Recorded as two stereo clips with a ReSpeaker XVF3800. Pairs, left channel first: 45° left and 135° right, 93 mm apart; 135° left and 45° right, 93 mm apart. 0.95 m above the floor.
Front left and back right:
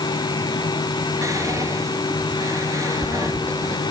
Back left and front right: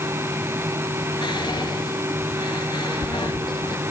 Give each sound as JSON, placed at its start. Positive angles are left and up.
{"t": 1.2, "sound": "whispering", "azimuth_deg": 170, "distance_m": 1.3}